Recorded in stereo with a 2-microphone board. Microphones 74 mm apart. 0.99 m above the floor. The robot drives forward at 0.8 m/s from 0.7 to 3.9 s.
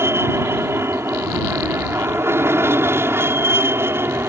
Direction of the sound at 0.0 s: 35° right (ahead or behind).